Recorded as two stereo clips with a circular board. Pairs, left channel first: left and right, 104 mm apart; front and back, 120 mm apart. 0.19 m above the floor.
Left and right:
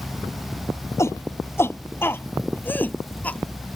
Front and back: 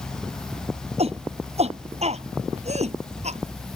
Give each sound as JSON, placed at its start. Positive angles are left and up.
{"t": 1.0, "sound": "a shout", "azimuth_deg": 155}